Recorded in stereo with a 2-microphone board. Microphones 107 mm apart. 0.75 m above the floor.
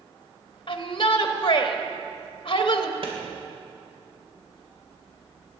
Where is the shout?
50° left (ahead or behind), 1.0 m.